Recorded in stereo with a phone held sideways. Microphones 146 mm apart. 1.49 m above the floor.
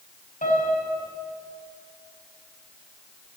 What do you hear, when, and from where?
0.4 s a piano: 65° left (ahead or behind), 6.5 m